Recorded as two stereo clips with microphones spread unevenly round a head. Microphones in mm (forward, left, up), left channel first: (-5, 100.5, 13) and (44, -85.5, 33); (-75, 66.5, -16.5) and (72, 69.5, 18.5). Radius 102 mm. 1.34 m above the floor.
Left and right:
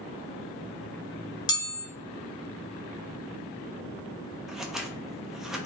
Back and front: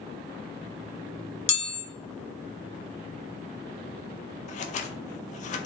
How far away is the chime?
About 1.0 m.